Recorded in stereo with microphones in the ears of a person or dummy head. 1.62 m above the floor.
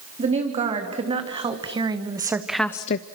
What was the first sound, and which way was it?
A woman speaking, 30° right (ahead or behind).